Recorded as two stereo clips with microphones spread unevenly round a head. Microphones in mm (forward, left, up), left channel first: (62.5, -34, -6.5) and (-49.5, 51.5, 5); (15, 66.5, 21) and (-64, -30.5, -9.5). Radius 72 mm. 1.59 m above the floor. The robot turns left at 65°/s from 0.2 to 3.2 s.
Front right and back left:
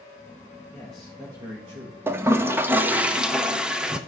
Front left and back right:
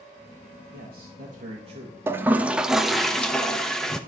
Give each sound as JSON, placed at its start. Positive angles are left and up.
{"t": 0.7, "sound": "a man speaking", "azimuth_deg": -110, "distance_m": 1.7}
{"t": 2.1, "sound": "a toilet flushing", "azimuth_deg": 155, "distance_m": 0.7}